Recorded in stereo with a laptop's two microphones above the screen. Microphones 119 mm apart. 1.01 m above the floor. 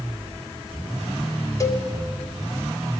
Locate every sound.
1.6 s a cowbell: 25° left (ahead or behind), 1.0 m